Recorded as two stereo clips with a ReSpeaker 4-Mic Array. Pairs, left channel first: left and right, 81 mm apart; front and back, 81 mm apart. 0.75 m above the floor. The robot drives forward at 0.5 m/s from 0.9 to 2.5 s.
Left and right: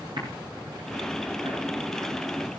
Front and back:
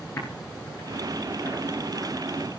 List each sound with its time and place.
0.2 s typing on a keyboard: 60° right, 9.5 m